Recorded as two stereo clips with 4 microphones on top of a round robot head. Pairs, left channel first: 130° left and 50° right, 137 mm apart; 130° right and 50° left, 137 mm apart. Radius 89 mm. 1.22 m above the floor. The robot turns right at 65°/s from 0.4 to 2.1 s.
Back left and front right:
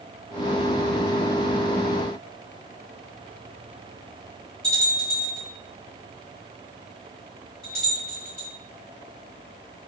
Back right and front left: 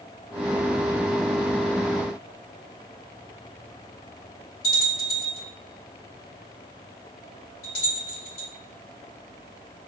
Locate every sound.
4.6 s a bell: 140° right, 1.7 m